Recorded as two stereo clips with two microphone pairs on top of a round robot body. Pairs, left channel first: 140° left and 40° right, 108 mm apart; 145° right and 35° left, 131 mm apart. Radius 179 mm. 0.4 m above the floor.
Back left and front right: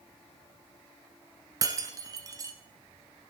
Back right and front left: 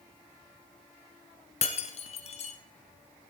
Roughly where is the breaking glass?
Right.